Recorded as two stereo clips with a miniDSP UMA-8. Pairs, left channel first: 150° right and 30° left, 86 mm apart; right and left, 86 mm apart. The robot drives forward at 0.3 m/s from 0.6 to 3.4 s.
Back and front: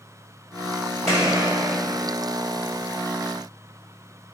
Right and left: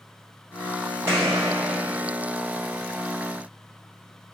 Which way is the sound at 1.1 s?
150° left.